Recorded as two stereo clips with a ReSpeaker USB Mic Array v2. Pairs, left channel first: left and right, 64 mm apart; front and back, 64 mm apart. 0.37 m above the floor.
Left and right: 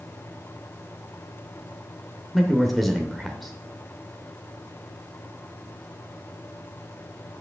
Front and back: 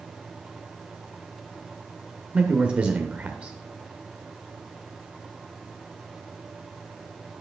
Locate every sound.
2.3 s a man speaking: straight behind, 0.9 m